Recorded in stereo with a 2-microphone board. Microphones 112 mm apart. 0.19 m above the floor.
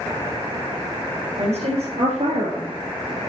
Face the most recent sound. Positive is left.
turn(degrees=-70)  # may be behind; listen again after turning